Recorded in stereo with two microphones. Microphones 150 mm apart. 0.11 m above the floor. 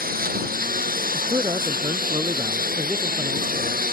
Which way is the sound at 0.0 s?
85° right.